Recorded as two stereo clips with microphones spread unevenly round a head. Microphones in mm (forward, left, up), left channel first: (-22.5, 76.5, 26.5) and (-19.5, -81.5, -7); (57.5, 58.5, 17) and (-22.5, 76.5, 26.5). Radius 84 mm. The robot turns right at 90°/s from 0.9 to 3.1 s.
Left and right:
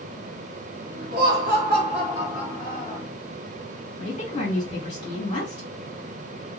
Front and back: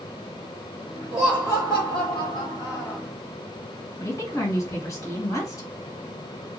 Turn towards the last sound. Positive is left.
turn(degrees=30)